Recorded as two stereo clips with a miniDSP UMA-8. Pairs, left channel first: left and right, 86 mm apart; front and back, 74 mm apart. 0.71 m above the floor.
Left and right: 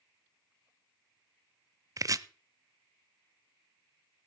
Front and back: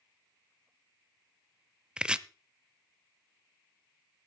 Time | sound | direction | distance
2.0 | chopping | 105° right | 0.5 m